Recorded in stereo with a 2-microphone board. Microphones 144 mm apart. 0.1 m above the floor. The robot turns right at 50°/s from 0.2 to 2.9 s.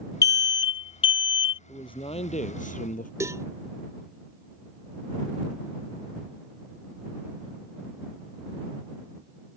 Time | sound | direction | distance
0.2 | an alarm | 45° left | ?
1.7 | a man speaking | 30° left | ?
3.2 | a cowbell | 20° right (ahead or behind) | ?